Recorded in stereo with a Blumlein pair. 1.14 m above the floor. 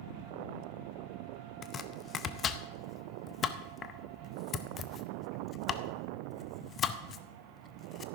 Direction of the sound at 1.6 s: 25° left.